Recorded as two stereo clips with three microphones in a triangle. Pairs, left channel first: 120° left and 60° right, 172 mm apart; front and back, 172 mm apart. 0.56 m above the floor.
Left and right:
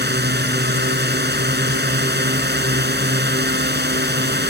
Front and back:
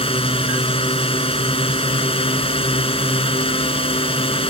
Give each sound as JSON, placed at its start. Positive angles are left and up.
{"t": 0.0, "sound": "a drone", "azimuth_deg": -55}